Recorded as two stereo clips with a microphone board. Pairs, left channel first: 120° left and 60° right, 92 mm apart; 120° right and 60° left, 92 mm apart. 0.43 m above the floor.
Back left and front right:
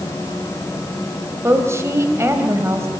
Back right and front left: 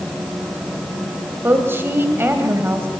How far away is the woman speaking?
About 3 m.